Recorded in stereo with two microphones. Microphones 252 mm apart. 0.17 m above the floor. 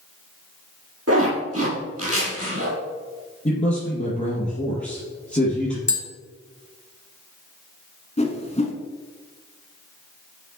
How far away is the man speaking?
About 2.5 m.